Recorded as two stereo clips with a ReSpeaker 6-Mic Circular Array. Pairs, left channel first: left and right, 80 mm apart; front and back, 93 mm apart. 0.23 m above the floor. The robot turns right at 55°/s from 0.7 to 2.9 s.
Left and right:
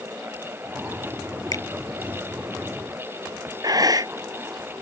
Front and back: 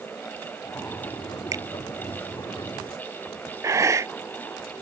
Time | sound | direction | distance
1.5 | a finger snap | 130° left | ?
3.6 | breathing | 125° right | ?